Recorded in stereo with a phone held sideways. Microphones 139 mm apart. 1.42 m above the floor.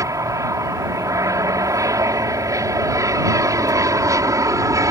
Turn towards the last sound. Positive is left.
turn(degrees=-25)  # may be behind; listen again after turning